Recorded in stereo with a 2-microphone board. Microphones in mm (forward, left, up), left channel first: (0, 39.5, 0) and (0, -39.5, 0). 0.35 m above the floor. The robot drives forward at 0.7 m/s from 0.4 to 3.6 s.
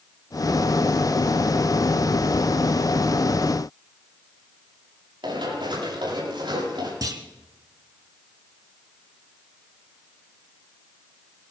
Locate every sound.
5.2 s running footsteps: 85° right, 8.5 m; by 6.9 s 80° right, 9 m
7.0 s a clunk: 55° right (ahead or behind), 1.3 m